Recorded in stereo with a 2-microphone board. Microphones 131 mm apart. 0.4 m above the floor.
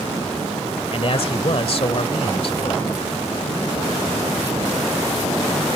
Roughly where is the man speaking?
Left.